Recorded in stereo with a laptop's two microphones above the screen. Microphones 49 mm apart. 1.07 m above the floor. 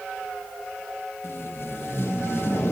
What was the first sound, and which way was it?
Tape being pulled, 50° left (ahead or behind).